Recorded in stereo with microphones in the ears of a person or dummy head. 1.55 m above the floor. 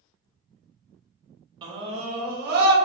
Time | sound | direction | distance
1.6 | a scream | 25° right (ahead or behind) | 1.2 m